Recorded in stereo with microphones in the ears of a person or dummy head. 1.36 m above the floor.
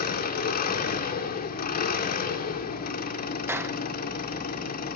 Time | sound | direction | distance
0.0 | an engine running | 45° left (ahead or behind) | 1.9 m
3.5 | a clap | 15° right (ahead or behind) | 0.8 m